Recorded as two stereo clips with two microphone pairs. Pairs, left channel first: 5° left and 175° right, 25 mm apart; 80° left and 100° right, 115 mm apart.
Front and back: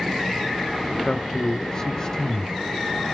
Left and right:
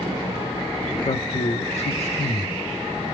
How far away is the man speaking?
About 0.6 m.